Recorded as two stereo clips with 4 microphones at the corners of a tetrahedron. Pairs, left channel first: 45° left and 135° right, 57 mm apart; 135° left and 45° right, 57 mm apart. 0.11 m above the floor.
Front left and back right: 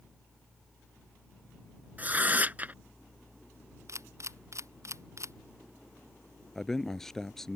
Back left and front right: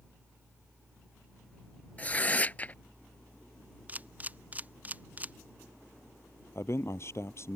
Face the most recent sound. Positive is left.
turn(degrees=125)